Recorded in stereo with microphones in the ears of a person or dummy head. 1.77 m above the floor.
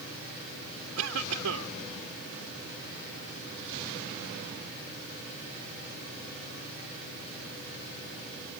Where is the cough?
80° right.